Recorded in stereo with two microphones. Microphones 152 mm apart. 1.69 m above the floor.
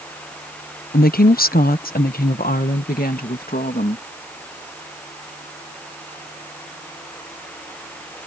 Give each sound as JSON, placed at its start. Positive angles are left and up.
{"t": 0.9, "sound": "a woman speaking", "side_deg": 75}